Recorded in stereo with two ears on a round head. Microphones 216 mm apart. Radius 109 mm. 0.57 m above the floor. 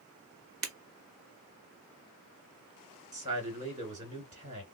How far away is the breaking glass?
About 1.1 m.